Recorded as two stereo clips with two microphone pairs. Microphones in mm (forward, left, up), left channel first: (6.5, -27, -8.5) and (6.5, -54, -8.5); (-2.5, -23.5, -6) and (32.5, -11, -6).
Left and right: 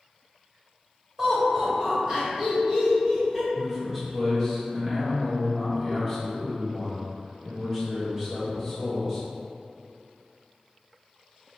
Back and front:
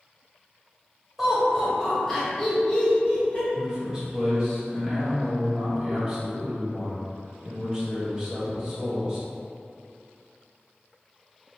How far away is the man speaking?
About 1.2 m.